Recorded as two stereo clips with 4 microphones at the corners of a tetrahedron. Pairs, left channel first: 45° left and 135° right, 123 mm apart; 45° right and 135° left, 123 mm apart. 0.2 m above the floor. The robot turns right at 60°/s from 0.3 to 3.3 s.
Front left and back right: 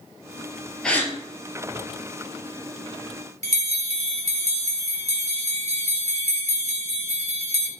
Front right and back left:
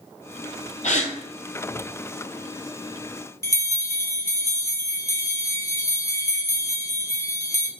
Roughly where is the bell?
Behind right.